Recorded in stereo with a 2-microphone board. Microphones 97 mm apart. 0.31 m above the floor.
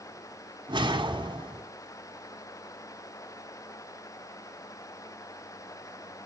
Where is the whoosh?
50° right (ahead or behind), 2 m.